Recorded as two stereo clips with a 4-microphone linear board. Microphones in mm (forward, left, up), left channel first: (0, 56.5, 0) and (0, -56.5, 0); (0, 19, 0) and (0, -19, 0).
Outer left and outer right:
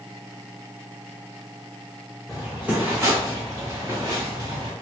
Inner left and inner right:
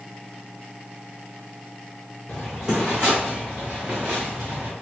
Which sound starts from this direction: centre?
Footsteps, at 2.3 s.